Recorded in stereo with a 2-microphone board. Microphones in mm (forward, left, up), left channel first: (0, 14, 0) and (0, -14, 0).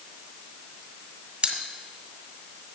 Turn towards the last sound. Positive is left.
turn(degrees=-35)  # may be behind; listen again after turning